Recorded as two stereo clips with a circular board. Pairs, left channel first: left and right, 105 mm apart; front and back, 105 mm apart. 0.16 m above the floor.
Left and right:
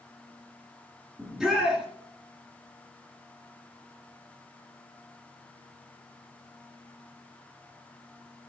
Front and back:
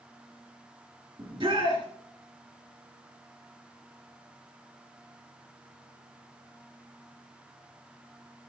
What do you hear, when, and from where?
1.2 s a shout: straight behind, 2 m